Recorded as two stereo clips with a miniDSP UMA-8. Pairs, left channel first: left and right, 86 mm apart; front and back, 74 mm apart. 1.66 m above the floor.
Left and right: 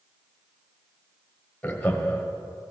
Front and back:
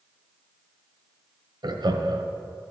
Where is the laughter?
170° left, 1.1 m.